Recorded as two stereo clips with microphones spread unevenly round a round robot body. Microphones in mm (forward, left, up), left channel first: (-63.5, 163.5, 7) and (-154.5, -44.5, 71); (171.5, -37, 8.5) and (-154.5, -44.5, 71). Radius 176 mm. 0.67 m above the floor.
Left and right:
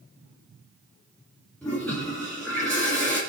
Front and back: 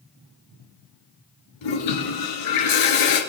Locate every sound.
1.6 s a toilet flushing: 20° right, 3 m